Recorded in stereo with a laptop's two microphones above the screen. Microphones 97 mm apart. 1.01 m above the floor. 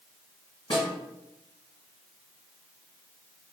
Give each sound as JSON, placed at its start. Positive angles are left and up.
{"t": 0.7, "sound": "a snare drum", "side_deg": 65, "distance_m": 1.9}